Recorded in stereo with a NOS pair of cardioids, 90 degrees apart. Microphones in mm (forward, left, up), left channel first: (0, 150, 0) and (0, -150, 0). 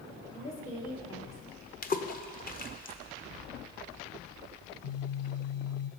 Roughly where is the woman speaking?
Ahead left.